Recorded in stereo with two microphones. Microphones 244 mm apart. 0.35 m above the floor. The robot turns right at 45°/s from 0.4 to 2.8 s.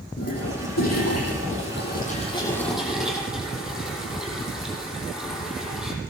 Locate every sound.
0.2 s a toilet flushing: 75° left, 9.5 m; by 5.9 s straight behind, 9.5 m